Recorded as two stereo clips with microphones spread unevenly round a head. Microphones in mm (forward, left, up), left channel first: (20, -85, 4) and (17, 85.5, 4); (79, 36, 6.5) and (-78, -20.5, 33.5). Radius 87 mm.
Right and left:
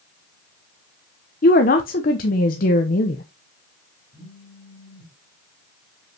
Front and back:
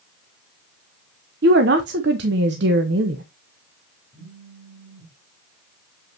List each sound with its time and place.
1.4 s a woman speaking: 135° right, 0.9 m
4.1 s a phone buzzing: 145° right, 3 m